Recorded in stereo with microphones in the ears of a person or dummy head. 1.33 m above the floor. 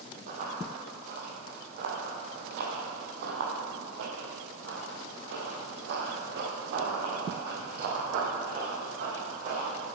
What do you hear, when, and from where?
0.3 s running footsteps: 45° right (ahead or behind), 3 m; by 9.8 s 40° right (ahead or behind), 4.5 m